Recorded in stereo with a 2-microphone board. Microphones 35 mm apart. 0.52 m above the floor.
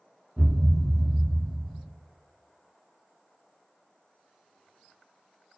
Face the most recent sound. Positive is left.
turn(degrees=-5)  # may be behind; listen again after turning